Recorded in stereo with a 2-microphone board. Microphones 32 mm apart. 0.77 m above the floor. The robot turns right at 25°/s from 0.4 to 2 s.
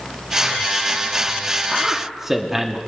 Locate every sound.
1.7 s a man speaking: 20° right (ahead or behind), 1.0 m; by 2.8 s 15° right (ahead or behind), 1.0 m